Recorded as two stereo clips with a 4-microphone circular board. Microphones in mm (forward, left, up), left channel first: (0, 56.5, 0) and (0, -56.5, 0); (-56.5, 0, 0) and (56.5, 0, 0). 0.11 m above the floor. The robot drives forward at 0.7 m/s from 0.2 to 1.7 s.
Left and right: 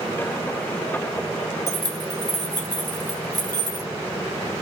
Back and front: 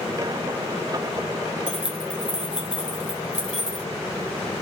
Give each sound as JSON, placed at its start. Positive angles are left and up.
{"t": 1.7, "sound": "keys jangling", "azimuth_deg": -75, "distance_m": 1.0}